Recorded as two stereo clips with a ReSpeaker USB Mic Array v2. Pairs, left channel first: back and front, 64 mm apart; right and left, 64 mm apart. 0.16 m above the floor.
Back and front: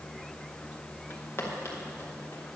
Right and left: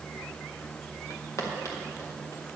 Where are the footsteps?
130° right, 3 m; by 2.4 s 135° right, 4 m.